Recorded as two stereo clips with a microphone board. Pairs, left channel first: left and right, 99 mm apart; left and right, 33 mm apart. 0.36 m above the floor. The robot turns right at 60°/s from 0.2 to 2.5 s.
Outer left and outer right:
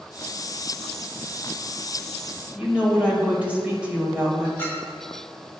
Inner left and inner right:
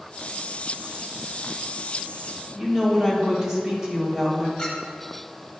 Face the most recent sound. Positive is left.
turn(degrees=25)  # may be behind; listen again after turning